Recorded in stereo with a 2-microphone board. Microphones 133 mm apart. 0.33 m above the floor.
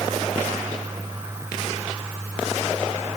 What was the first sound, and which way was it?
Only background noise.